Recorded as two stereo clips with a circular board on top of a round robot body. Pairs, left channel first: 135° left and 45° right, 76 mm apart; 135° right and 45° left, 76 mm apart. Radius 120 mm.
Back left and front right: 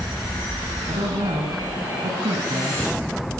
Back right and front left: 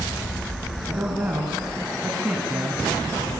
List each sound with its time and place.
0.9 s a woman speaking: 25° right, 6.5 m